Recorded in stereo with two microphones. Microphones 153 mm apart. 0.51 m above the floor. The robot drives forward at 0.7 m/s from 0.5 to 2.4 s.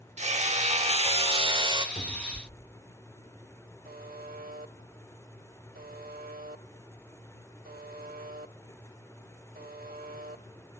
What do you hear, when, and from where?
0.2 s hammering: 50° right (ahead or behind), 1.0 m; by 1.9 s 30° right (ahead or behind), 1.4 m
1.9 s a cupboard door: 45° left (ahead or behind), 1.2 m; by 2.8 s 40° left (ahead or behind), 1.4 m
3.9 s a buzzer: 80° right, 0.9 m